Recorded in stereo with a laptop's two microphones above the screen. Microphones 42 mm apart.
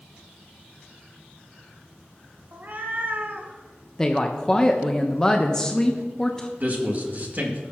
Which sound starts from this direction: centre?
A woman speaking, at 4.0 s.